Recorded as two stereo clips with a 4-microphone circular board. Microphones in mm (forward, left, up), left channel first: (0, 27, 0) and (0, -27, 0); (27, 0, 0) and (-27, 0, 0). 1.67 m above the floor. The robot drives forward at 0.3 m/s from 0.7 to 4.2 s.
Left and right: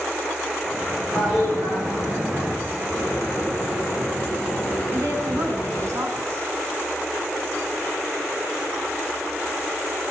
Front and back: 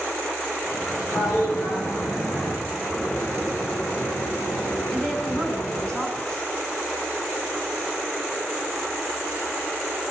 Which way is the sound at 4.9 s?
75° right.